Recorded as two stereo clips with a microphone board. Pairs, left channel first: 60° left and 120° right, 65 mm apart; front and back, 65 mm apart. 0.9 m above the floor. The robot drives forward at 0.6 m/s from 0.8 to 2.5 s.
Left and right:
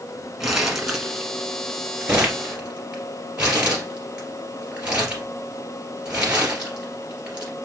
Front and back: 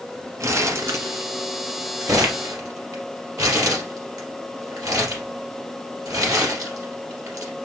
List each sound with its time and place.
0.4 s crumpling: 155° left, 1.4 m; by 7.5 s 165° left, 2.5 m